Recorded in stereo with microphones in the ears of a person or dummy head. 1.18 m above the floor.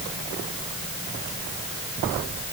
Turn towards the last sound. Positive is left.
No sound to turn to.